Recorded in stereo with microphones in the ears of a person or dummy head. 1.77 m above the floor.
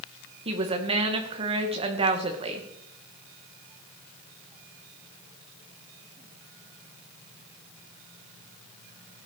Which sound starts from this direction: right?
A woman speaking, at 0.5 s.